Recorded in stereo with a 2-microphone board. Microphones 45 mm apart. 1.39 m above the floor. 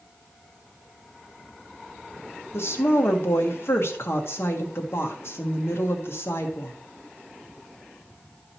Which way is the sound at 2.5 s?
60° left (ahead or behind).